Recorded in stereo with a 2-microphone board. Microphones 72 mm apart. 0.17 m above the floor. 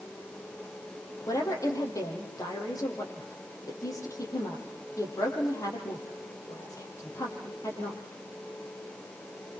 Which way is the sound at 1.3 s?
50° left (ahead or behind).